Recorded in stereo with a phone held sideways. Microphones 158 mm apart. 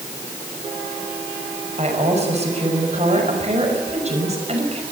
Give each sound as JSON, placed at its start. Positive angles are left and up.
{"t": 1.8, "sound": "a woman speaking", "side_deg": -45, "distance_m": 5.5}